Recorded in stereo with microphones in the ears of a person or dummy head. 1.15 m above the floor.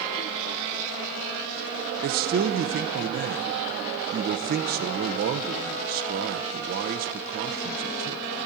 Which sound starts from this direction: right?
A man speaking, at 2.0 s.